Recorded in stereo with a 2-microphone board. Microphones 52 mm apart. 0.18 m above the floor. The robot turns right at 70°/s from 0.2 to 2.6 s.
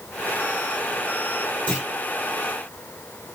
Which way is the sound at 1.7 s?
20° left (ahead or behind).